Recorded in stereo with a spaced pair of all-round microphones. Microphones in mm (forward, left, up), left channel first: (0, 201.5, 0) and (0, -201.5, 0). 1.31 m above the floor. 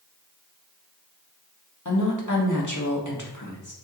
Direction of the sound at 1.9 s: 45° left (ahead or behind).